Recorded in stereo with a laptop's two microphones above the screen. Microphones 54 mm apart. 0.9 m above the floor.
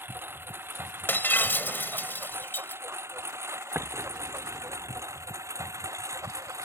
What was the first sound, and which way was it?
A lawn mower, 40° right (ahead or behind).